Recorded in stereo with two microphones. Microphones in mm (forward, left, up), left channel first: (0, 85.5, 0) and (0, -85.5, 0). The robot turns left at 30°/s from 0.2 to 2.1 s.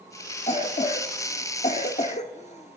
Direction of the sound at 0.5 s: 40° left (ahead or behind).